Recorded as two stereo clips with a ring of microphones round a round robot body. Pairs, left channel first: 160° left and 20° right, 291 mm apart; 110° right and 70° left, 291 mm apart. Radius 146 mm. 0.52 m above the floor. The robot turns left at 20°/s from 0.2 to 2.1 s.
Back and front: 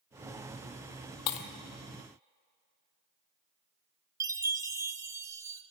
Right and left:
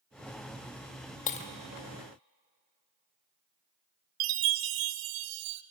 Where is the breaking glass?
175° right, 0.9 m; by 1.5 s straight behind, 0.9 m.